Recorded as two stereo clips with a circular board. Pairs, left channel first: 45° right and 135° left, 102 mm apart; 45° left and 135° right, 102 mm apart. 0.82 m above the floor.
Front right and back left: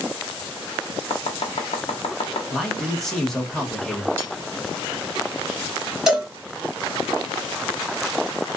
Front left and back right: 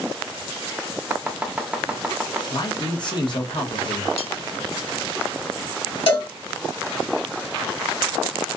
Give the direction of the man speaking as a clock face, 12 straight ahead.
11 o'clock.